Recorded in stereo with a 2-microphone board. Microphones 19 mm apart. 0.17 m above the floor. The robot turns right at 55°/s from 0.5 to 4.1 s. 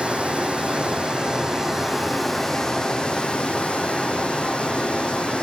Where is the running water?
90° right, 2 m; by 5.4 s 110° left, 2 m.